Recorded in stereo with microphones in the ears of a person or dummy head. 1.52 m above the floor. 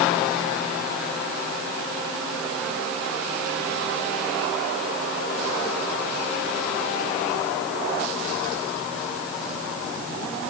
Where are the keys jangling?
I don't hear keys jangling.